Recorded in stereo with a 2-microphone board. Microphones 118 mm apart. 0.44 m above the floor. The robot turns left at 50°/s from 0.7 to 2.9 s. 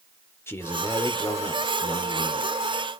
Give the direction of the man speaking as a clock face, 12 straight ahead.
7 o'clock.